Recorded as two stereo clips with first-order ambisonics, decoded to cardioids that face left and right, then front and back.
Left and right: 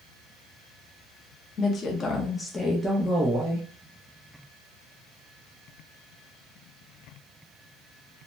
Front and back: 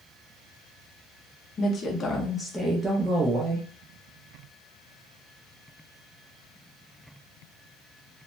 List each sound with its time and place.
1.6 s a woman speaking: 45° left, 0.8 m; by 3.7 s 145° right, 0.8 m